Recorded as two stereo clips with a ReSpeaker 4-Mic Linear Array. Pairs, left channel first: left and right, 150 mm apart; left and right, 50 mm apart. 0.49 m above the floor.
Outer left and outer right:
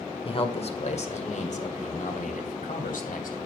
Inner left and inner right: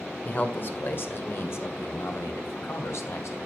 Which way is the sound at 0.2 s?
40° left (ahead or behind).